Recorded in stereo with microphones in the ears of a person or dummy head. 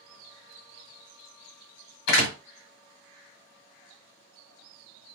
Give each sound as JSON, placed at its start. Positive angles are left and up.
{"t": 2.1, "sound": "a door slam", "side_deg": 65, "distance_m": 1.3}